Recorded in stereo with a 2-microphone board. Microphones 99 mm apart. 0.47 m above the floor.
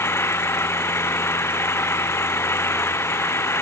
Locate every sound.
0.0 s an engine running: 25° left (ahead or behind)